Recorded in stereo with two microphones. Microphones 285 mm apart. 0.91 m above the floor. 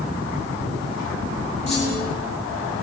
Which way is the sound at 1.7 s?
65° right (ahead or behind).